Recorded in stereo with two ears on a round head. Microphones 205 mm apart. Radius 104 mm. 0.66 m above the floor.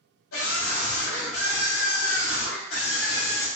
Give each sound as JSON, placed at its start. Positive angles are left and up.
{"t": 0.3, "sound": "a scream", "side_deg": 60, "distance_m": 1.6}